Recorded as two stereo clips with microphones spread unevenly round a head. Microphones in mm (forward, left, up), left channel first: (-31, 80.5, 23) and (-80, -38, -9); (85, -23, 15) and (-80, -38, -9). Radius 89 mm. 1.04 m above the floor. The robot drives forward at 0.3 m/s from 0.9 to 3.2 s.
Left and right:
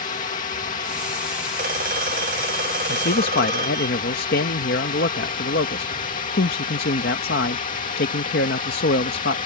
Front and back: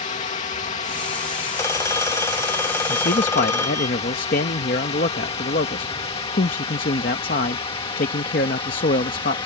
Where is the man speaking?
50° left; by 9.4 s 55° left.